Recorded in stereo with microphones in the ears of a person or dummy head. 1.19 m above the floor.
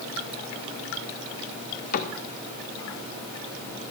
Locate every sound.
1.9 s a cupboard door: 60° left (ahead or behind), 1.2 m